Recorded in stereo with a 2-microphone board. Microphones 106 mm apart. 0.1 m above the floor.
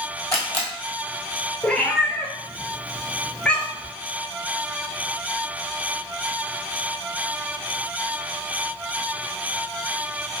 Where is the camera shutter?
25° left (ahead or behind), 1.3 m.